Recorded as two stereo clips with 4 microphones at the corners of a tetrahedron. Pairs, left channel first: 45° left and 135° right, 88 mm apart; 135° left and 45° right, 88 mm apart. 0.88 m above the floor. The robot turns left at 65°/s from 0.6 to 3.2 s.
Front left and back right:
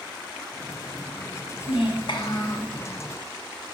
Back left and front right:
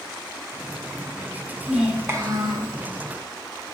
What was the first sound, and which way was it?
A child speaking, 45° left.